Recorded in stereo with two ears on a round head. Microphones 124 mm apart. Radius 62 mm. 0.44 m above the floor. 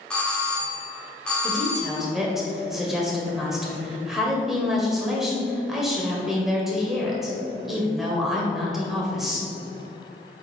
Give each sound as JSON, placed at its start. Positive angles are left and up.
{"t": 0.1, "sound": "a doorbell", "side_deg": 10, "distance_m": 1.7}
{"t": 1.4, "sound": "a woman speaking", "side_deg": 0, "distance_m": 2.0}